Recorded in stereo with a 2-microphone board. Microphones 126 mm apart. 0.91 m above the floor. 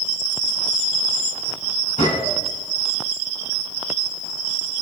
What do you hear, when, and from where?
2.0 s a gunshot: 65° left (ahead or behind), 4 m